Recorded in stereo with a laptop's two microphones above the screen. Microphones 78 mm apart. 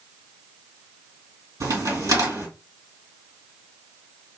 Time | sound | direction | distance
1.6 | a crack | 50° right (ahead or behind) | 2.5 m